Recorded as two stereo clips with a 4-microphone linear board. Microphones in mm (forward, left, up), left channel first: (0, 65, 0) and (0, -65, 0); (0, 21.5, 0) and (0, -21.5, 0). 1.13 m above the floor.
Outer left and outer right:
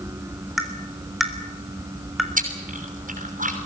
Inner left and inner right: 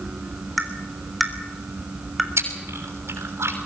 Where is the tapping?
Centre (ahead or behind), 3.5 m.